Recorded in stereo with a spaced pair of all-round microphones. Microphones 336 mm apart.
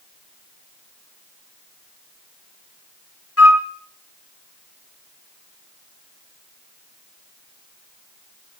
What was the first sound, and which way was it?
A flute, 45° left (ahead or behind).